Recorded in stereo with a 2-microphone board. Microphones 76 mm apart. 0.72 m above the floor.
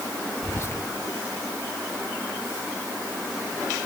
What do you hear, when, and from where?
0.4 s whispering: 40° left (ahead or behind), 1.2 m